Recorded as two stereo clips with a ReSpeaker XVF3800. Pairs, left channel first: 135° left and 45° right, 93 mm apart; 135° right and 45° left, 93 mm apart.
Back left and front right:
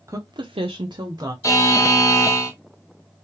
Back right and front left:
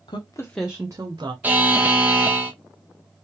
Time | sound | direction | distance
0.1 | a woman speaking | 105° right | 0.8 m
1.4 | a buzzer | 105° left | 0.9 m